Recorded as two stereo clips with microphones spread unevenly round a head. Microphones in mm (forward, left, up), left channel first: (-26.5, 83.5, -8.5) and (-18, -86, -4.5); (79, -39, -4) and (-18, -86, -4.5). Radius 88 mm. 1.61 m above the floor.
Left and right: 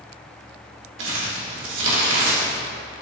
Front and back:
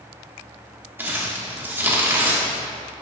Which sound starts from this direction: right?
Crumpling, at 1.0 s.